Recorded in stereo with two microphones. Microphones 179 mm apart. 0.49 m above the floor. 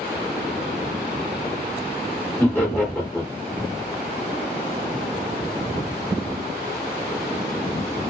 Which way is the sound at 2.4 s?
10° left (ahead or behind).